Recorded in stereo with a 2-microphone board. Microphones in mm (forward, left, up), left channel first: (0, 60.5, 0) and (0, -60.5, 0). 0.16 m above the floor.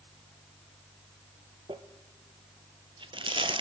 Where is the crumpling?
45° right (ahead or behind), 0.6 m.